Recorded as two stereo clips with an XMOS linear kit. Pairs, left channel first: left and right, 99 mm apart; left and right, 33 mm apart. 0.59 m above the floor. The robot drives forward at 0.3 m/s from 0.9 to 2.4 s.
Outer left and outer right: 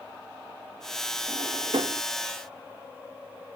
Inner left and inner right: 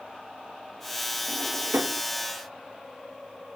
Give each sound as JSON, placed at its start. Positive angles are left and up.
{"t": 1.3, "sound": "a drawer", "side_deg": -65}